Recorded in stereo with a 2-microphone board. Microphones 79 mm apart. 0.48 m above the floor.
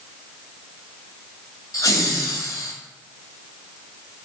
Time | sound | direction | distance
1.7 | laughter | 50° left (ahead or behind) | 2 m